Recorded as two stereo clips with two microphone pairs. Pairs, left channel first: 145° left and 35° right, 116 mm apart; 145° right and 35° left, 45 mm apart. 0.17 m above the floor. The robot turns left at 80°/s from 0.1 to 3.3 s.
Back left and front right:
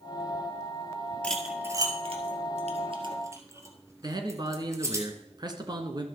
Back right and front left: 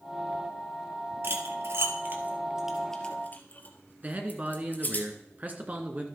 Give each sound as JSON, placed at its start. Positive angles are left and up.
{"t": 1.2, "sound": "cutlery clinking", "azimuth_deg": 65, "distance_m": 2.0}
{"t": 4.0, "sound": "a man speaking", "azimuth_deg": 0, "distance_m": 2.0}